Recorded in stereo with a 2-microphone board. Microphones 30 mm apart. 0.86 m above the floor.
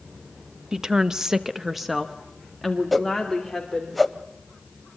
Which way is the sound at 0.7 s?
25° right (ahead or behind).